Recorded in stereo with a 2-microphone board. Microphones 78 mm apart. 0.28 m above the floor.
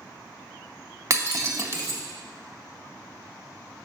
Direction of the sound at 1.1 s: 40° right (ahead or behind).